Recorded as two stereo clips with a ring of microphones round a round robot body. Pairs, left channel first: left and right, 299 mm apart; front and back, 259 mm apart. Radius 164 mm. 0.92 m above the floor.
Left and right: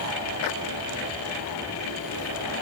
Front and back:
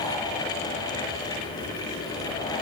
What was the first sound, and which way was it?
Only background noise.